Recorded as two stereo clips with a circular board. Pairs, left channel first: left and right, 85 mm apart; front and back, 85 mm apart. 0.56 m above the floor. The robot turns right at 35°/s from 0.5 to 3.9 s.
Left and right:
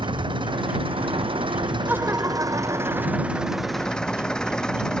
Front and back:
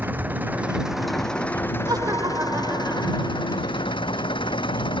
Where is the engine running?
110° right; by 5.0 s 10° left.